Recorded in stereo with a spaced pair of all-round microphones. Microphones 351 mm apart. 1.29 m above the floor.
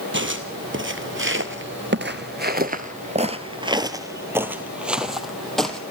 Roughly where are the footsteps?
Right.